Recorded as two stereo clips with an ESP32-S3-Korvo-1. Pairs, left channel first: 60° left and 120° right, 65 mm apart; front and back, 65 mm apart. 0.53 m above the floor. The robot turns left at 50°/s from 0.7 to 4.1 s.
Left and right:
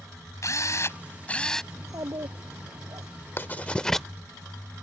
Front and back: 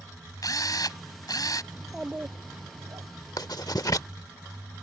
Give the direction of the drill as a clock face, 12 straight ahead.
11 o'clock.